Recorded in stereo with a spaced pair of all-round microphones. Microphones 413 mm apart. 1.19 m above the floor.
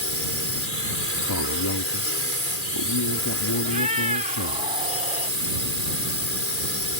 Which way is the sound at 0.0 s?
30° left (ahead or behind).